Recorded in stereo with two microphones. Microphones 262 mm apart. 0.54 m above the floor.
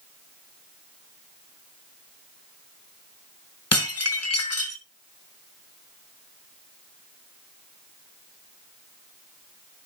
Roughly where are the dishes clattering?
Left.